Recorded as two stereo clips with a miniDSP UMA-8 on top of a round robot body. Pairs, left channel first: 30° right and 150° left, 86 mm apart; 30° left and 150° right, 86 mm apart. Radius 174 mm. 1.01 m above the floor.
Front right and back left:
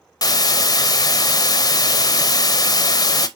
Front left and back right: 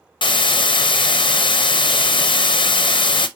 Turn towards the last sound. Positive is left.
turn(degrees=10)